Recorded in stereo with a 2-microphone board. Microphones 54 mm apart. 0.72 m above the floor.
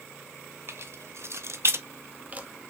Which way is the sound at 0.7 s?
50° right (ahead or behind).